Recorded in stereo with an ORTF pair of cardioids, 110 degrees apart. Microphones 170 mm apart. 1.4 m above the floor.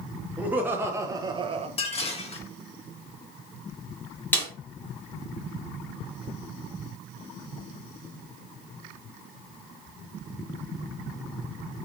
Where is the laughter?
10° right, 1.4 m; by 1.7 s 35° right, 0.7 m.